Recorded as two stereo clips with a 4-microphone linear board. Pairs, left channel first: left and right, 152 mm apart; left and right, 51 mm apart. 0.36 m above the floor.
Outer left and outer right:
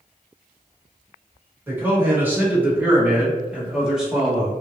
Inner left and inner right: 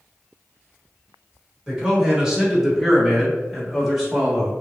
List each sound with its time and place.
1.7 s a man speaking: 15° right (ahead or behind), 1.3 m; by 4.6 s centre (ahead or behind), 1.2 m